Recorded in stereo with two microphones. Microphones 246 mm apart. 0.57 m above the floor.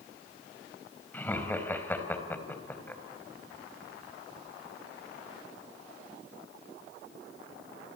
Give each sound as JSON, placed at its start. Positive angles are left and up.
{"t": 1.1, "sound": "laughter", "side_deg": 5, "distance_m": 3.5}